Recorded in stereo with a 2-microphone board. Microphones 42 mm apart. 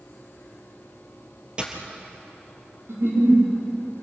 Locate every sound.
1.6 s a dropped coin: 25° right (ahead or behind), 3 m
2.9 s a giggle: 85° right, 7 m